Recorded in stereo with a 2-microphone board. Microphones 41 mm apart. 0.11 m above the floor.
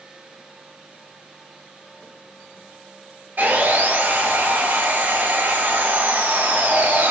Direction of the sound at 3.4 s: 50° right (ahead or behind).